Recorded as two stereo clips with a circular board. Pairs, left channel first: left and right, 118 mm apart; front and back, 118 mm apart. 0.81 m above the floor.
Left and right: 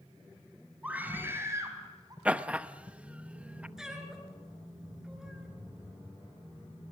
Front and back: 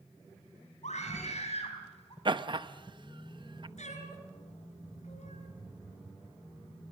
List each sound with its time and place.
0.8 s a scream: 10° right, 5 m; by 2.1 s 35° right, 5 m
2.2 s laughter: 165° right, 0.8 m
3.8 s a cat meowing: 5° right, 3 m